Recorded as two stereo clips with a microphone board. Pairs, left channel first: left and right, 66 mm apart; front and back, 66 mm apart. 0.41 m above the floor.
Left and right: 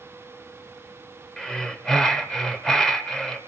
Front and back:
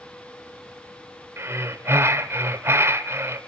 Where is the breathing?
170° left, 1.8 m.